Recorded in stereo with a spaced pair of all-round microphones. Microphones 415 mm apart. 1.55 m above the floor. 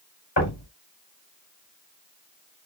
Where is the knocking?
85° left, 5 m.